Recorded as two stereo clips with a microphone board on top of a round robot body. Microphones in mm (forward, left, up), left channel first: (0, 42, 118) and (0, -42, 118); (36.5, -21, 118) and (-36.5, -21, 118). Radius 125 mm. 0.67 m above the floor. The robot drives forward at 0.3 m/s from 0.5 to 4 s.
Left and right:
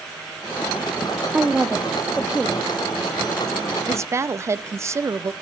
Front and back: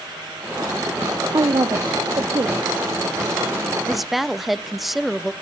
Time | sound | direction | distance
1.3 | a woman speaking | 165° right | 0.9 m
3.9 | a woman speaking | 85° right | 0.7 m